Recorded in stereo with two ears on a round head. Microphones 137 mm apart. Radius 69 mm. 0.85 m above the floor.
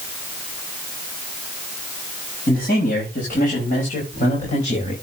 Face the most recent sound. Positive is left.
turn(degrees=45)  # may be behind; listen again after turning